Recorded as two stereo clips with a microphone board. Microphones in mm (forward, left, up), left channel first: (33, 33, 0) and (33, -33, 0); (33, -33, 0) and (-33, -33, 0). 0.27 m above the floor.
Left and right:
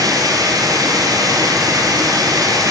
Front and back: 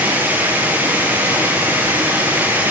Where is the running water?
115° right, 5.5 m.